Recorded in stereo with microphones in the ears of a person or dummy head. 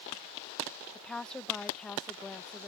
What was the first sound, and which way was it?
A woman speaking, 10° left (ahead or behind).